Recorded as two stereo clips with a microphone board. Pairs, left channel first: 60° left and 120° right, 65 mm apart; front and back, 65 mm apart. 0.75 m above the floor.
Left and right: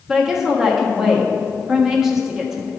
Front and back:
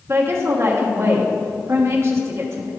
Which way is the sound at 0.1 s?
160° left.